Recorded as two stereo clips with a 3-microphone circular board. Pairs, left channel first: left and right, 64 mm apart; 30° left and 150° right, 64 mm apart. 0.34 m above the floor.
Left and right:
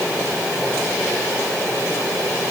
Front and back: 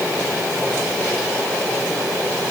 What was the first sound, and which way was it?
Only background noise.